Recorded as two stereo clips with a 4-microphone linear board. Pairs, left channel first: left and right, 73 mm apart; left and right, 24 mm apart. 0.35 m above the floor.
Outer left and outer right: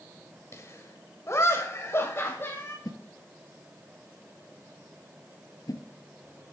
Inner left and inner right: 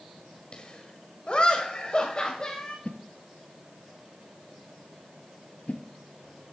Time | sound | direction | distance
0.5 | laughter | 40° left (ahead or behind) | 1.7 m
2.9 | a whoosh | 60° left (ahead or behind) | 1.0 m